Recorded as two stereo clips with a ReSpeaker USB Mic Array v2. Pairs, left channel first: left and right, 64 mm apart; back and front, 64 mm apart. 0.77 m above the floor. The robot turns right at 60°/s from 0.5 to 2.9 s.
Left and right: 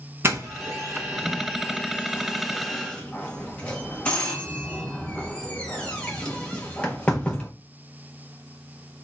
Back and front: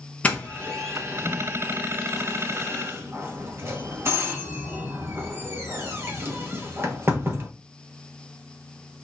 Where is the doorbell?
120° right, 1.1 m; by 7.5 s 20° left, 1.1 m.